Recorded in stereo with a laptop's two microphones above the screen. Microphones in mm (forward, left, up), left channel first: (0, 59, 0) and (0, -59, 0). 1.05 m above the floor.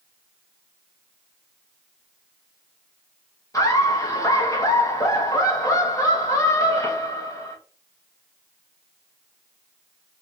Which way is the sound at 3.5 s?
30° left (ahead or behind).